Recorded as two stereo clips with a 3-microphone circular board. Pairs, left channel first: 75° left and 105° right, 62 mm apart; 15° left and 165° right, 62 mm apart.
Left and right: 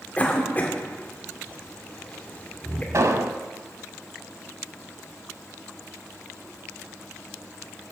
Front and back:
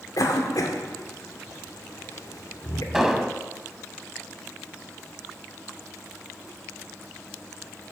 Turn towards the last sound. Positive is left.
turn(degrees=-85)